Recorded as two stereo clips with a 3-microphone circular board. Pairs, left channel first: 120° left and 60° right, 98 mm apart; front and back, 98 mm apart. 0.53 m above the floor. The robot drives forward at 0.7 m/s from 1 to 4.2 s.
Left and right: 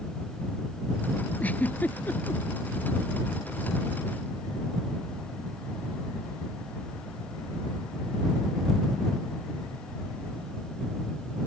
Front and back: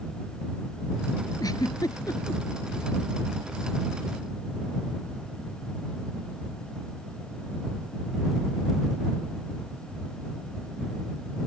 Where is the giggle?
50° left.